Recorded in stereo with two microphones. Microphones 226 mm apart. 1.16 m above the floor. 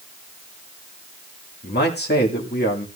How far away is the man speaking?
About 1.8 m.